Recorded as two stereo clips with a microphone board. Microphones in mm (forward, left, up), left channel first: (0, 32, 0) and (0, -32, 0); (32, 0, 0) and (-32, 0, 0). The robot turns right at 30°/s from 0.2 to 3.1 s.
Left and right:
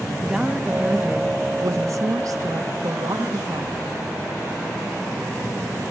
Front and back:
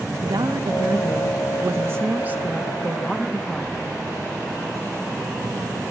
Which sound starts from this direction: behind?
A woman speaking, at 0.2 s.